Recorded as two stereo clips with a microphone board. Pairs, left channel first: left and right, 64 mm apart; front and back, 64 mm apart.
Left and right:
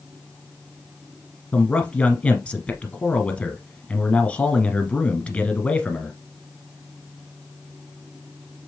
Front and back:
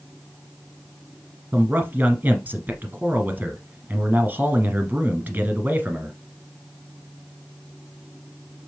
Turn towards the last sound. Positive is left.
turn(degrees=145)